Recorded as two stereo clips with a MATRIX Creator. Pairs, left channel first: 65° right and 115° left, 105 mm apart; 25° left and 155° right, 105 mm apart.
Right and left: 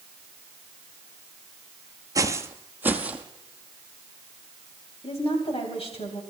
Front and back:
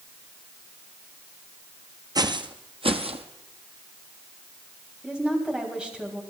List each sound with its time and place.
2.1 s footsteps: 160° left, 0.8 m; by 3.2 s 170° right, 1.4 m
5.0 s a woman speaking: 75° right, 3.5 m